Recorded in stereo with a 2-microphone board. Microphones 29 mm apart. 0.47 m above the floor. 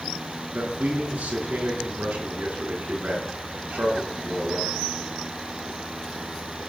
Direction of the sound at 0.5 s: 70° right (ahead or behind).